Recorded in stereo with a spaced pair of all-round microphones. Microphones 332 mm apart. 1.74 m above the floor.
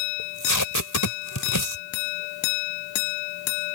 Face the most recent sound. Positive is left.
turn(degrees=70)  # may be behind; listen again after turning